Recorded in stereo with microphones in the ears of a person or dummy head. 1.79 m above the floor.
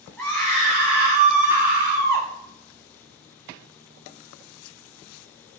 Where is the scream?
5° left (ahead or behind), 4 m; by 2.3 s 25° right (ahead or behind), 6 m.